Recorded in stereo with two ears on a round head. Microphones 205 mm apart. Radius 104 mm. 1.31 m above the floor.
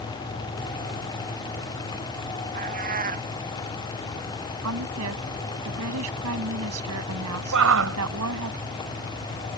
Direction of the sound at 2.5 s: 40° right (ahead or behind).